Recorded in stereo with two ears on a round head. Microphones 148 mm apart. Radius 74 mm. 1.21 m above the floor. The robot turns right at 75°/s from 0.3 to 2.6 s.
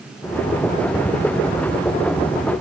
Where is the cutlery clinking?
No cutlery clinking in this recording.